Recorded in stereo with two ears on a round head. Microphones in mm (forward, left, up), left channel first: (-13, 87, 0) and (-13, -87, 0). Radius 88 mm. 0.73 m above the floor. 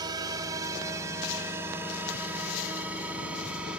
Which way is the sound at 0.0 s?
20° right (ahead or behind).